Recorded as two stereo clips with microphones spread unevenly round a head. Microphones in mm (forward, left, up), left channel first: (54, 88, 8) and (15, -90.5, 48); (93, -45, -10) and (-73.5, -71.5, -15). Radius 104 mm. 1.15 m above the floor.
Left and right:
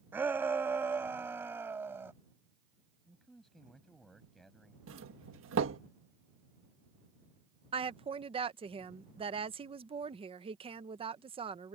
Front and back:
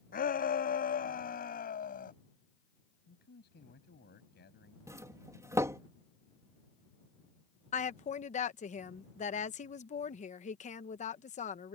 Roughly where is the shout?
Ahead right.